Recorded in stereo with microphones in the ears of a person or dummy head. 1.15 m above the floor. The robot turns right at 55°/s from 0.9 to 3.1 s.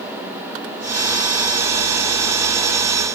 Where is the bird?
No bird in this recording.